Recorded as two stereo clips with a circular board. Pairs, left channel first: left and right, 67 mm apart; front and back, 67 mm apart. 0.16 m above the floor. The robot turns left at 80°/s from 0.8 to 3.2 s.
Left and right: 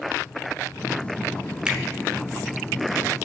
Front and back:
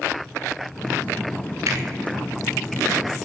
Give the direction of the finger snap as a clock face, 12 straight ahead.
5 o'clock.